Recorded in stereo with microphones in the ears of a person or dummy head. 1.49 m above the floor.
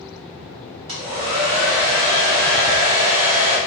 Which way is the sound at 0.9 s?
35° right (ahead or behind).